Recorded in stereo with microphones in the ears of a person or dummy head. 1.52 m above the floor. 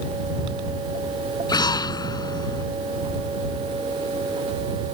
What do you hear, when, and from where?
1.5 s an explosion: 25° left (ahead or behind)